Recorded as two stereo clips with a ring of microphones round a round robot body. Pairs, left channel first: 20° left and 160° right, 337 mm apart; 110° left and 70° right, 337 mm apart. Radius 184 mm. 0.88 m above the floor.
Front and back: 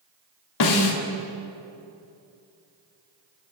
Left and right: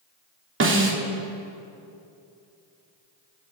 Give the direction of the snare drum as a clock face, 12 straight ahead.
12 o'clock.